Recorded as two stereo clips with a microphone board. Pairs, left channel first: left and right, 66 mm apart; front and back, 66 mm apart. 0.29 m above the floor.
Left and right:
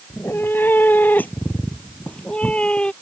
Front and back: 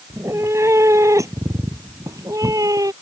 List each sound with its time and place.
0.1 s a cat meowing: 140° left; by 2.9 s 160° left